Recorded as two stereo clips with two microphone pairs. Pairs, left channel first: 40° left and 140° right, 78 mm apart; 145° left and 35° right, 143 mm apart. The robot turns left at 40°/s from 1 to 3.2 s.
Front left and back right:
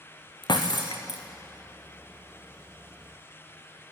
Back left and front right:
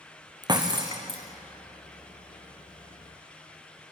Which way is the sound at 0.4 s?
25° left.